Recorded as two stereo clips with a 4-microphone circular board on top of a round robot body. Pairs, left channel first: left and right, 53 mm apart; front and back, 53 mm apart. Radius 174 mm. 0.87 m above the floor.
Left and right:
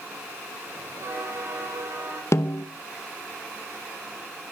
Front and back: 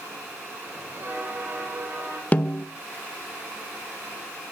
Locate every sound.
0.7 s a bell: 125° right, 5 m
2.3 s a snare drum: 60° left, 1.1 m